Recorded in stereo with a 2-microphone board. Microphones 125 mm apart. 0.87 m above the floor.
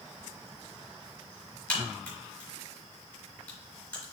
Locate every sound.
1.7 s a crack: 15° left (ahead or behind), 4 m